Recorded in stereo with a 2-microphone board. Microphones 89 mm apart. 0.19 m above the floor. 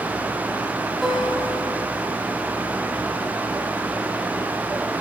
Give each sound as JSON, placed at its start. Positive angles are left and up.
{"t": 1.0, "sound": "a guitar", "side_deg": 0, "distance_m": 5.0}